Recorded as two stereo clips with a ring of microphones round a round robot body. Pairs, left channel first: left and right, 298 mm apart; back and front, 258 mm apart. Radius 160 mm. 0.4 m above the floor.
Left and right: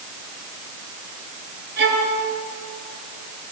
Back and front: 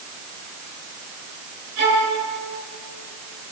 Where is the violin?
30° right, 8 m.